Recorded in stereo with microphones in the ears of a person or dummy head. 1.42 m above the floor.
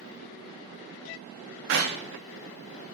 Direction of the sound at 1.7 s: 65° right (ahead or behind).